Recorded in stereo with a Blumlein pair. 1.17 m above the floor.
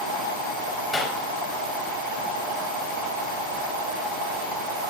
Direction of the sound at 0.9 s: 10° left.